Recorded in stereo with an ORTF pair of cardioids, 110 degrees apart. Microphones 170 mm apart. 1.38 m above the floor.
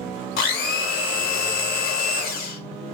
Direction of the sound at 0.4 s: 65° left.